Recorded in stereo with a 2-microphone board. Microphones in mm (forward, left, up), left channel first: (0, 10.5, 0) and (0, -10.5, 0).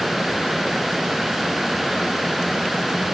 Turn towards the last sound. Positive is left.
No sound to turn to.